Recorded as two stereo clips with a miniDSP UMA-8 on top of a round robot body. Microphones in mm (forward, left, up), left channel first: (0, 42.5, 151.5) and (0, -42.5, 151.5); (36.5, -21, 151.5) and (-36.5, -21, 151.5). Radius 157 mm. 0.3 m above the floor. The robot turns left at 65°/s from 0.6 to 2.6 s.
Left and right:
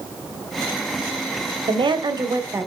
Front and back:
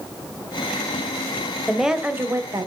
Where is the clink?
No clink in this recording.